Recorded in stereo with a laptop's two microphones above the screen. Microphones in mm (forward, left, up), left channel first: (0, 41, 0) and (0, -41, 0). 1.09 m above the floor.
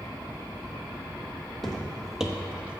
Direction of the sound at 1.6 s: Centre (ahead or behind).